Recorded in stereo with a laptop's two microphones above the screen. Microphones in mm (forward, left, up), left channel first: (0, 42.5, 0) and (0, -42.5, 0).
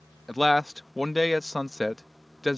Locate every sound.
0.3 s a man speaking: centre (ahead or behind)